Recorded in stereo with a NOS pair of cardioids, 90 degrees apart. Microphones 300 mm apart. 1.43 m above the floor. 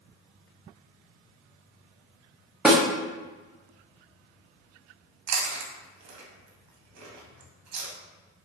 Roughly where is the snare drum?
Ahead.